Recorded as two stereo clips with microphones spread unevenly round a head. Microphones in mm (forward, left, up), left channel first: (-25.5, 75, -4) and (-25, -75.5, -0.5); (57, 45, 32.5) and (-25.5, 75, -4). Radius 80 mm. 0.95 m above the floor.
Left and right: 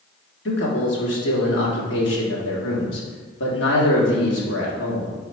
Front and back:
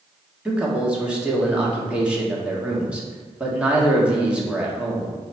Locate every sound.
0.5 s a man speaking: 85° left, 1.8 m